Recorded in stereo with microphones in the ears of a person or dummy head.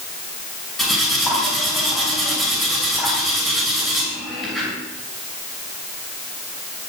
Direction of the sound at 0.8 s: Centre (ahead or behind).